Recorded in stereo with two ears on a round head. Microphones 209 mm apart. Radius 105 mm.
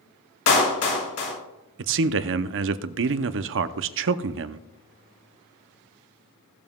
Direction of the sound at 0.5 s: 60° left (ahead or behind).